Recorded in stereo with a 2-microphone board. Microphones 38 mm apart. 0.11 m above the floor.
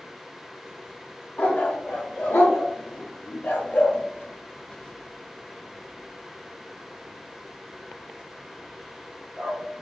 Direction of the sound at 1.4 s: 50° left (ahead or behind).